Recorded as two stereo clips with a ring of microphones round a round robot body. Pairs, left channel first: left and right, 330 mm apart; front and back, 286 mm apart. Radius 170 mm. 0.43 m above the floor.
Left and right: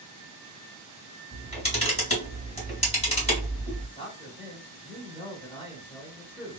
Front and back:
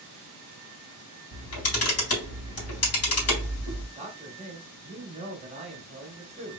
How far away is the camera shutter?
About 1.8 m.